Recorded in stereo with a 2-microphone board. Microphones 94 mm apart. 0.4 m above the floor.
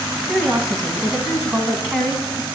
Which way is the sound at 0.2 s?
Centre (ahead or behind).